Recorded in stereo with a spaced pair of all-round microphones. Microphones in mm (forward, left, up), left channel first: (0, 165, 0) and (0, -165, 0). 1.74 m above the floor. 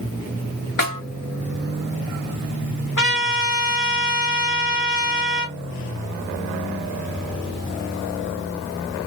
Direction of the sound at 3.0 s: 65° left (ahead or behind).